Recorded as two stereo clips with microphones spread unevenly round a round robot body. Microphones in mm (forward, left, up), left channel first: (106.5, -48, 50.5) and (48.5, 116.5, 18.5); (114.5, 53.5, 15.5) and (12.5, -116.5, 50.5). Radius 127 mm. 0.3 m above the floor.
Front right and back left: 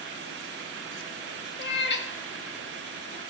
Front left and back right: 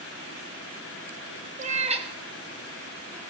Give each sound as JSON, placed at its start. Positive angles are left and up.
{"t": 1.6, "sound": "a cat meowing", "azimuth_deg": -65, "distance_m": 1.0}